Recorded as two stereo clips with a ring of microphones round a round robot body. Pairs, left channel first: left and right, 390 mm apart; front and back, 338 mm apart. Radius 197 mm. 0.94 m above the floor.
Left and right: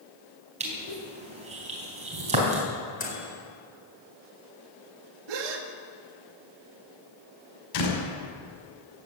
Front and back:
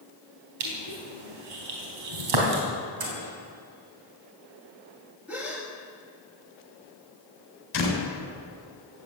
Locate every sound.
0.6 s crushing: 165° right, 4 m
3.0 s a microwave: 160° left, 4 m
5.3 s a gasp: 95° right, 1.5 m
7.7 s a door slam: 50° left, 5.5 m